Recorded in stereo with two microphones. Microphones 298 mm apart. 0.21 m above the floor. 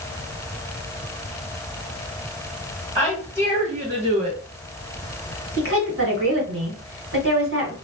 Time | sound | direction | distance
3.0 | a woman speaking | 5° right (ahead or behind) | 1.9 m
5.6 | a woman speaking | 45° right (ahead or behind) | 1.5 m